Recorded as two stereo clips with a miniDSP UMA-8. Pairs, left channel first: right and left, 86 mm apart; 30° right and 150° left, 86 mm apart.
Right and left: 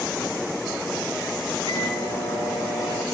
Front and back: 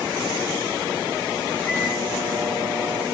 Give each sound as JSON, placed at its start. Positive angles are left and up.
{"t": 1.6, "sound": "a microwave", "azimuth_deg": -100, "distance_m": 7.5}